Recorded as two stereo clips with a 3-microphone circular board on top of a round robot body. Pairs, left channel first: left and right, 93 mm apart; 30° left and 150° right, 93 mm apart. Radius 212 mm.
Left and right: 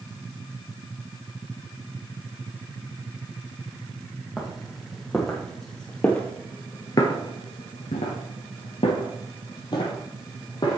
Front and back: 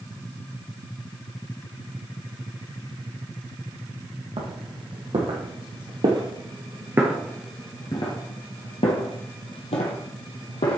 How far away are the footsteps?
About 2 m.